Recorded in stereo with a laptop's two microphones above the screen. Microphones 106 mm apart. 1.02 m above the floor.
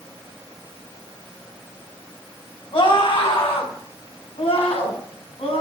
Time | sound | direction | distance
2.7 | a scream | 60° left (ahead or behind) | 6 m